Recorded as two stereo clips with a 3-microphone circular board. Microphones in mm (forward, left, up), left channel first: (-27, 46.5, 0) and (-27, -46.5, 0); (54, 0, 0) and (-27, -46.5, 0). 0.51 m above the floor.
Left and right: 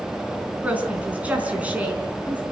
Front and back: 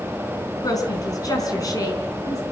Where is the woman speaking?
15° right, 4.5 m.